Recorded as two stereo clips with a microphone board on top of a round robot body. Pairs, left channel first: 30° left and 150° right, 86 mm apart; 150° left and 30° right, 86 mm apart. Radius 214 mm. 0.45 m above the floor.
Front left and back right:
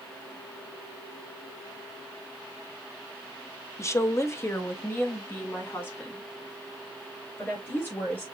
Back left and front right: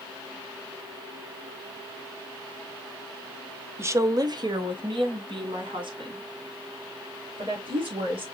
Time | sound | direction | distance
3.8 | a woman speaking | 5° left | 1.0 m